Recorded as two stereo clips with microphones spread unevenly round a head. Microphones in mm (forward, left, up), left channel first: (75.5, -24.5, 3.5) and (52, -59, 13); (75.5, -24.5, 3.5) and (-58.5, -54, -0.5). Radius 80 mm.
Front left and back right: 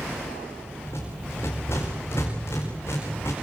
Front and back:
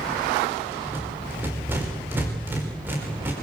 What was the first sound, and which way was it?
A rattle, 115° left.